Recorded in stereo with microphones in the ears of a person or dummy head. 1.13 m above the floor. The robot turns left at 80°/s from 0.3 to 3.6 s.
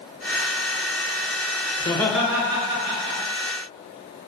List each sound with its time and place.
1.8 s laughter: 30° left, 0.5 m; by 3.2 s 85° right, 0.5 m